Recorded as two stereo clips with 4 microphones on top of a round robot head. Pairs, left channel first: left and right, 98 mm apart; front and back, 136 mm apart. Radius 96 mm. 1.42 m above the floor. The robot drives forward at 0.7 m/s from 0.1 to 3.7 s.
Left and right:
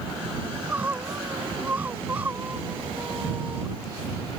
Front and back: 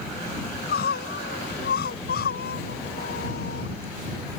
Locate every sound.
0.4 s crying: 10° right